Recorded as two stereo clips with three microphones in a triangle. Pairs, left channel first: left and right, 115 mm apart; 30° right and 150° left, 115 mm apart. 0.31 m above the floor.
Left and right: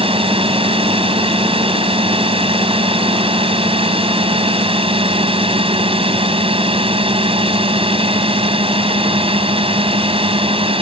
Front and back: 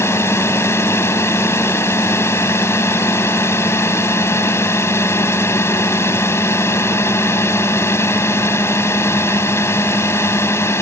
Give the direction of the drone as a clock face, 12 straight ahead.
3 o'clock.